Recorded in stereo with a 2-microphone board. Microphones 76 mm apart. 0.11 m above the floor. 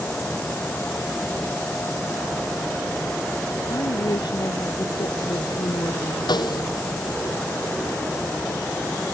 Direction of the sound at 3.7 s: 70° left (ahead or behind).